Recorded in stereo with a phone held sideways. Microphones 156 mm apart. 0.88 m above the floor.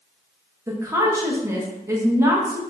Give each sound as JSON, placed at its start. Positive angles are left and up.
{"t": 0.7, "sound": "a woman speaking", "side_deg": -20, "distance_m": 1.0}